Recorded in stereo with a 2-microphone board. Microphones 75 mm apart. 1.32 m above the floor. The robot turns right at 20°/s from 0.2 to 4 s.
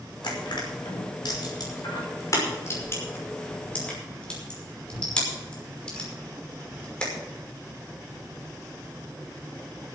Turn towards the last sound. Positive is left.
turn(degrees=10)  # may be behind; listen again after turning